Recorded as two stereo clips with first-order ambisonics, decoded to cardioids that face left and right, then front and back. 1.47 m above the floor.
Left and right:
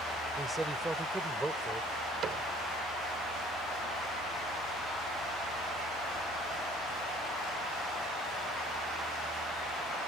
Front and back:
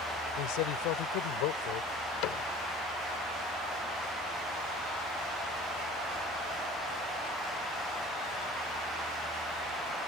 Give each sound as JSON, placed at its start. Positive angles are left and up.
{"t": 0.4, "sound": "a man speaking", "azimuth_deg": -10}
{"t": 2.2, "sound": "a cupboard door", "azimuth_deg": -30}